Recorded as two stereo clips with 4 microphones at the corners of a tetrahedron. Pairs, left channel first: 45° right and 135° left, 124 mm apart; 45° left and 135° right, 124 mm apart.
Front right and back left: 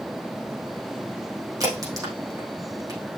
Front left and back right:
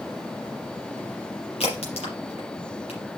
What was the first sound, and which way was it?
A crack, 75° left.